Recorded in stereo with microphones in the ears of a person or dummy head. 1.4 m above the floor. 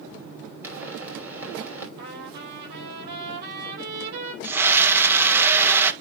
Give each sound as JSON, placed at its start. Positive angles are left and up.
{"t": 0.6, "sound": "a pop", "side_deg": -10, "distance_m": 5.5}
{"t": 2.0, "sound": "a trumpet", "side_deg": -60, "distance_m": 5.5}
{"t": 4.4, "sound": "a scream", "side_deg": -10, "distance_m": 1.8}